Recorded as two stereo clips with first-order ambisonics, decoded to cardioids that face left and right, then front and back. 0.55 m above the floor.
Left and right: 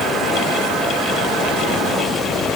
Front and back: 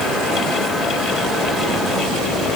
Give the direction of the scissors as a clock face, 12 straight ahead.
No scissors in this recording.